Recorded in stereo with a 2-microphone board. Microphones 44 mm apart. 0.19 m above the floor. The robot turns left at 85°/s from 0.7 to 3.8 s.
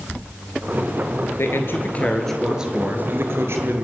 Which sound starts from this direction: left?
A man speaking, at 1.4 s.